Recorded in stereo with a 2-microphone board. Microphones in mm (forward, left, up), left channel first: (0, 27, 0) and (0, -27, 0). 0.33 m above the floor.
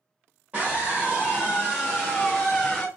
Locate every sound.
0.5 s a scream: 30° right (ahead or behind), 1.2 m; by 2.9 s 5° left (ahead or behind), 1.3 m